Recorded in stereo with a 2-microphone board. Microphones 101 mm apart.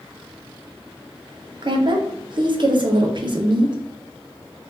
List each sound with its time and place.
1.6 s a woman speaking: 50° right (ahead or behind), 0.7 m